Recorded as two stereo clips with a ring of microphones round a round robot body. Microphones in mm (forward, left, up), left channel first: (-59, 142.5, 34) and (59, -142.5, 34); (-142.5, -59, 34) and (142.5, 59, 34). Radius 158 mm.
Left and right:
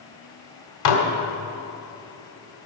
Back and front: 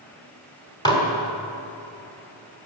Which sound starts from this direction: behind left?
Dishes clattering, at 0.8 s.